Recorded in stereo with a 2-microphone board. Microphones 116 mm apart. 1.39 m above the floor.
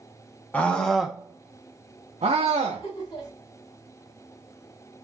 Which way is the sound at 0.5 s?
15° left (ahead or behind).